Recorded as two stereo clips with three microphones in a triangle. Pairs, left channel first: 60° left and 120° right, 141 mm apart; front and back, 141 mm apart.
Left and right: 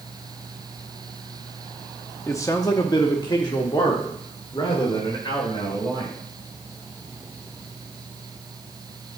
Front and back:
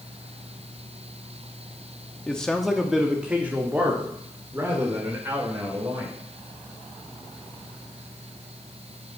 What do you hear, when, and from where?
2.3 s a man speaking: 65° left, 0.8 m; by 6.2 s 115° left, 2.5 m